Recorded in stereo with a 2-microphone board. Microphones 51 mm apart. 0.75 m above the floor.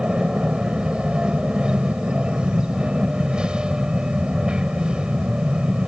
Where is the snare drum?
No snare drum in this recording.